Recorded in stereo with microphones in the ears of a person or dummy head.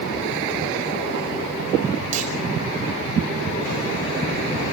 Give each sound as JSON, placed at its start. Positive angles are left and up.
{"t": 2.1, "sound": "a clunk", "side_deg": -50, "distance_m": 6.5}